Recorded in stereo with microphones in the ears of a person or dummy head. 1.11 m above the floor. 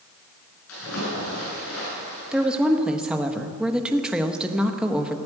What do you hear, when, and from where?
0.7 s a splash: 80° left, 7 m
2.3 s a woman speaking: 5° right (ahead or behind), 1.0 m